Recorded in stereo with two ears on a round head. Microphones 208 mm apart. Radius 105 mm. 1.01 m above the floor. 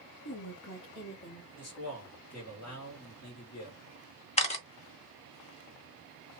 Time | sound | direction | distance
0.2 | a woman speaking | 65° left (ahead or behind) | 0.8 m
1.6 | a man speaking | 70° left (ahead or behind) | 2 m
4.4 | a camera shutter | 30° left (ahead or behind) | 0.8 m